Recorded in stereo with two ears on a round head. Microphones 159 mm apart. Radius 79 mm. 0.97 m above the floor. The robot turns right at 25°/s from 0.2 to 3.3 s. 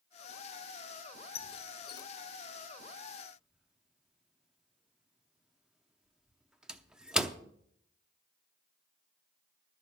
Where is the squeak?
35° left (ahead or behind), 0.6 m; by 7.4 s 5° right (ahead or behind), 0.6 m.